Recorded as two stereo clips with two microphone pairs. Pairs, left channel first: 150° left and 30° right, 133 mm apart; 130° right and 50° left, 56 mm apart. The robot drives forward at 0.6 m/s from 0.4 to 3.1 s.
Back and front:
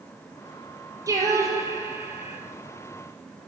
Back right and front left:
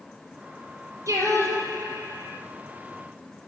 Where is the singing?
35° left, 3.5 m; by 2.4 s 40° left, 3 m.